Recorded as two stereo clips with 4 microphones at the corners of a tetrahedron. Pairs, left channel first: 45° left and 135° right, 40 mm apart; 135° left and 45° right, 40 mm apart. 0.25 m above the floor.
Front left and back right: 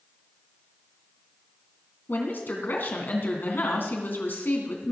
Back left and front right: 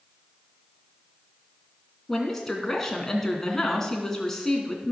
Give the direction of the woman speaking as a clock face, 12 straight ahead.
10 o'clock.